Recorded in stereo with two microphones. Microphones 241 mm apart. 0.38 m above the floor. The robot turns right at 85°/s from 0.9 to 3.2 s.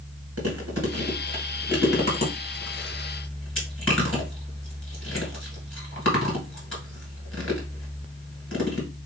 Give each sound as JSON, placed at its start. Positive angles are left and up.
{"t": 0.4, "sound": "chewing", "side_deg": -75, "distance_m": 1.8}